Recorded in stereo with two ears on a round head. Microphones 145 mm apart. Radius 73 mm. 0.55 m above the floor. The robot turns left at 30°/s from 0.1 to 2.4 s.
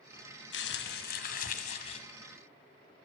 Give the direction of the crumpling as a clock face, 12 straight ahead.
9 o'clock.